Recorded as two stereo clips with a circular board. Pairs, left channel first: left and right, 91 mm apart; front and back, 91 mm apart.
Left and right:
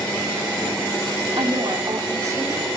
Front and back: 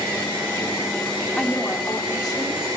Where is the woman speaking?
75° right, 2.0 m; by 2.7 s 35° right, 3 m.